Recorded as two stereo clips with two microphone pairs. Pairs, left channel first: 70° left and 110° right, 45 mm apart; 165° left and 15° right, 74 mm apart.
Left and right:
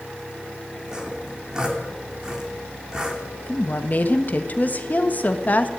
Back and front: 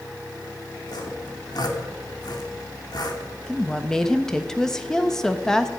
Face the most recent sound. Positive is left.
turn(degrees=85)